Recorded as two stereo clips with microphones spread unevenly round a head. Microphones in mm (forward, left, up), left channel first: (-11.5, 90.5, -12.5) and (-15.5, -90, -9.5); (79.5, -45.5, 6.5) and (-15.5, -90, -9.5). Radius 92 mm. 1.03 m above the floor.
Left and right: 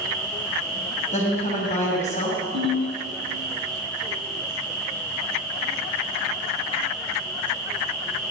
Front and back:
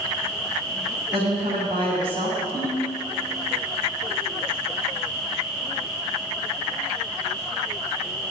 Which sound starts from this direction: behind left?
A woman speaking, at 1.1 s.